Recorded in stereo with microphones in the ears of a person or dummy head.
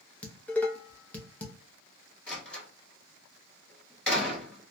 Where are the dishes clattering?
5° left (ahead or behind), 0.6 m.